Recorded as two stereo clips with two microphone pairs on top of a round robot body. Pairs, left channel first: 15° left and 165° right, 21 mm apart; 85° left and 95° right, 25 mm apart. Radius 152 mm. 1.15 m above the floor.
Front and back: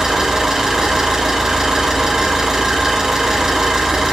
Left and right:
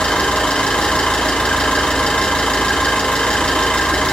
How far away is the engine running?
About 3 m.